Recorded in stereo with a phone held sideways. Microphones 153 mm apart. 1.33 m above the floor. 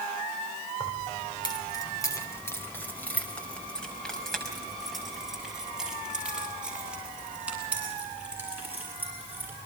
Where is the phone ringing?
No phone ringing in this recording.